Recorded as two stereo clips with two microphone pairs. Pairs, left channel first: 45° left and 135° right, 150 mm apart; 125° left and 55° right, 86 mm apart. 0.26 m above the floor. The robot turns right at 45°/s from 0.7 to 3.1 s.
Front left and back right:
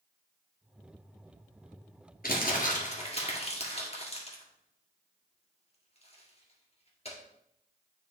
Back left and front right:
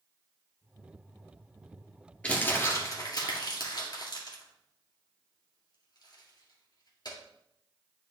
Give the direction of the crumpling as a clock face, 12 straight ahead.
10 o'clock.